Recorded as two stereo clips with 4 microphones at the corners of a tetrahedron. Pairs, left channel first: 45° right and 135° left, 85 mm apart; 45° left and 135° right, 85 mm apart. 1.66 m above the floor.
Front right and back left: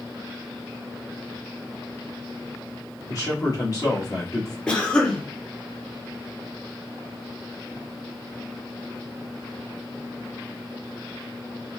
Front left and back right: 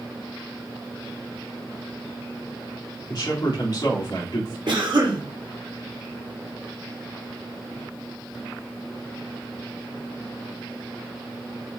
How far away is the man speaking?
About 1.6 m.